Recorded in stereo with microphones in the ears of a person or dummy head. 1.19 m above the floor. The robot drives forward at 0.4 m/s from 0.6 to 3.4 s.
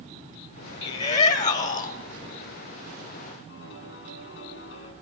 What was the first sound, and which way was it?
A shout, 45° left (ahead or behind).